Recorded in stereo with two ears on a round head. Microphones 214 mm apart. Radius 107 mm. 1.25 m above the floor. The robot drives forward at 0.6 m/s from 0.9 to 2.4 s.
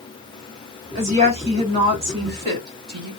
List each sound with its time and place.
0.9 s a woman speaking: 30° right (ahead or behind), 2.5 m; by 3.1 s 20° right (ahead or behind), 3 m